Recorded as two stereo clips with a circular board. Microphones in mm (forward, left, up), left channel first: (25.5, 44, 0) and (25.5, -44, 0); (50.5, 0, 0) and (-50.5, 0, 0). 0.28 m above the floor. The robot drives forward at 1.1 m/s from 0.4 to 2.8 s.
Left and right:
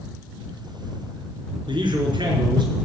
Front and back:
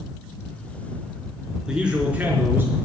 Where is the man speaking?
100° right, 4 m; by 2.8 s 115° right, 4.5 m.